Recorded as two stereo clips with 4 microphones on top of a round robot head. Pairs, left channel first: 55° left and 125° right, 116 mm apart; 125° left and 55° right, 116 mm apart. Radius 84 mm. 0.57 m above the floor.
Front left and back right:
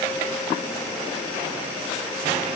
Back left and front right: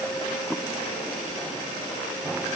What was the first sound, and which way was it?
Only background noise.